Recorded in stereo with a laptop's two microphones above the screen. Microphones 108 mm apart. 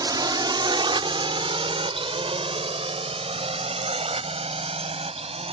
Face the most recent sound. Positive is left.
turn(degrees=-80)